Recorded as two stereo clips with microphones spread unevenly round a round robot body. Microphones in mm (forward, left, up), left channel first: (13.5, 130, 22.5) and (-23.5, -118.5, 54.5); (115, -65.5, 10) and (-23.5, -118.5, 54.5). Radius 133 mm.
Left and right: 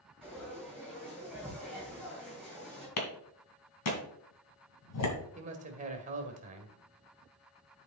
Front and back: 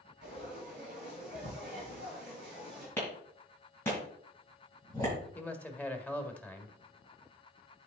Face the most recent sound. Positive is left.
turn(degrees=-40)